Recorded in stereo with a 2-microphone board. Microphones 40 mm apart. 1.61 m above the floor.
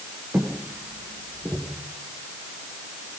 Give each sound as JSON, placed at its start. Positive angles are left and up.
{"t": 0.3, "sound": "footsteps", "side_deg": -55, "distance_m": 8.5}